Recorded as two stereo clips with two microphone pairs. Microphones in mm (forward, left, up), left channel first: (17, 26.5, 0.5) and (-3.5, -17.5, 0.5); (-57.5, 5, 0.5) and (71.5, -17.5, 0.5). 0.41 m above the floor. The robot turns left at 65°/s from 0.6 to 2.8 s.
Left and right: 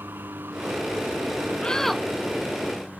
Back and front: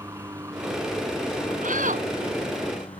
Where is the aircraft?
75° right; by 3.0 s 140° left.